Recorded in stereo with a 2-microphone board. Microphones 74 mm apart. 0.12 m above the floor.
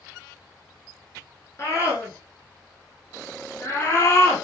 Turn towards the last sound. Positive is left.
turn(degrees=30)  # may be behind; listen again after turning